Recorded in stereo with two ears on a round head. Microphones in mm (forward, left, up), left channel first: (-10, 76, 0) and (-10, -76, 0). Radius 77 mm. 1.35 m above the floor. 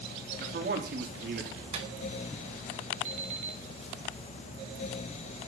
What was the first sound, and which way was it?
A man speaking, 55° right (ahead or behind).